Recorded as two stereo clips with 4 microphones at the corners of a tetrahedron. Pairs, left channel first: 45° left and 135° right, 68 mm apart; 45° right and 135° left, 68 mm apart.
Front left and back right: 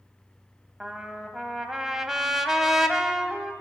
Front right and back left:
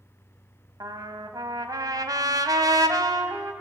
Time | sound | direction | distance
0.8 | a trumpet | 140° left | 1.5 m